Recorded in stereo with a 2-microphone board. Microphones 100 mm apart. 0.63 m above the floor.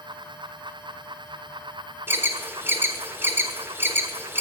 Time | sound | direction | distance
2.1 | an alarm | 25° right (ahead or behind) | 1.0 m